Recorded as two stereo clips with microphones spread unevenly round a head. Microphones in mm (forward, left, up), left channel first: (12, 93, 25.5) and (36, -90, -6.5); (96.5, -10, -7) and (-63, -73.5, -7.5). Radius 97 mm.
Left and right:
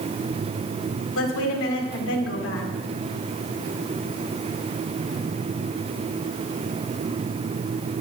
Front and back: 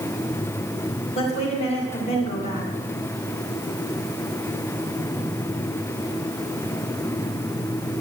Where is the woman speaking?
85° left, 2 m.